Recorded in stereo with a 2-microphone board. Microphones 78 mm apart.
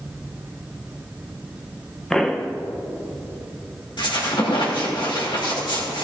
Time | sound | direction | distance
2.1 | a pop | 5° left (ahead or behind) | 0.7 m
4.0 | a squeak | 80° left | 3 m